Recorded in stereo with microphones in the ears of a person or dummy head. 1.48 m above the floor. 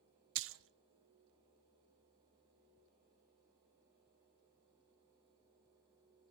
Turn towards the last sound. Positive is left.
turn(degrees=-65)  # may be behind; listen again after turning